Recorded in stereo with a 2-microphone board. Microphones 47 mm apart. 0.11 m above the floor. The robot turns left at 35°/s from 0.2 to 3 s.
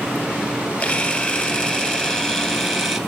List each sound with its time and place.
0.8 s a camera shutter: 75° left, 1.2 m; by 3.0 s straight ahead, 1.2 m